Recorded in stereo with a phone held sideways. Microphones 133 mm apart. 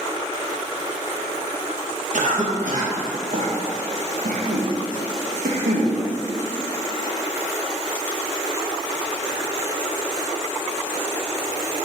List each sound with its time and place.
2.1 s a cough: 75° right (ahead or behind), 1.7 m